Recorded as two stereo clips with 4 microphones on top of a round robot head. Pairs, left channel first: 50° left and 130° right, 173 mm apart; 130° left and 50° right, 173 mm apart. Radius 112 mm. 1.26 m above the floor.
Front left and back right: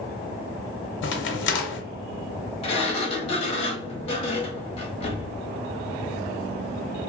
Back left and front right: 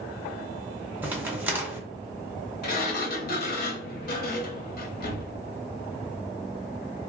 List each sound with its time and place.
1.0 s a crack: 30° left, 0.6 m
2.6 s a sliding door: 105° left, 0.7 m